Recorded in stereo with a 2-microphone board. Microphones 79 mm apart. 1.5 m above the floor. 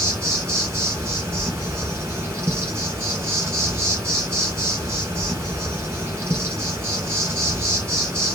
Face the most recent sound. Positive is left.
turn(degrees=-30)  # may be behind; listen again after turning